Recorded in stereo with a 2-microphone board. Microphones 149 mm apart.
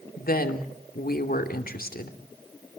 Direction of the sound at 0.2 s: 85° left.